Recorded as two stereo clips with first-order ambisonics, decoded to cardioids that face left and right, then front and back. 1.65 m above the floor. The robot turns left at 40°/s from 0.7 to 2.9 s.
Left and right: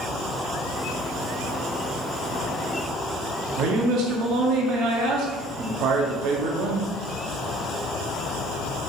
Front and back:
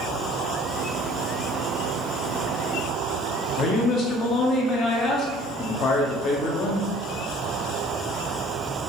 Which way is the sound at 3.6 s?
55° right.